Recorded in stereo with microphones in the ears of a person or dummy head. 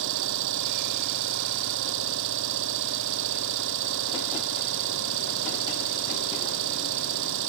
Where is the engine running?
70° right (ahead or behind).